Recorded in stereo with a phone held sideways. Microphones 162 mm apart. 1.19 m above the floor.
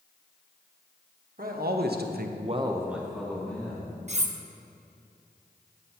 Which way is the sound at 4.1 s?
45° right (ahead or behind).